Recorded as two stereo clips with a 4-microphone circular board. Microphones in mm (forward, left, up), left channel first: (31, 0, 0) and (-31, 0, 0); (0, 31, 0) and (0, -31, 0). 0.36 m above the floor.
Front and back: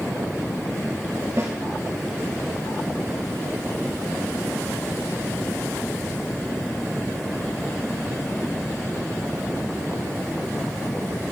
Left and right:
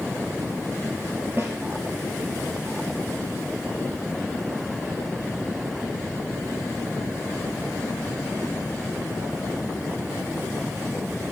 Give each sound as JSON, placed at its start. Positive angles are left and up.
{"t": 1.4, "sound": "a snare drum", "azimuth_deg": -145, "distance_m": 2.5}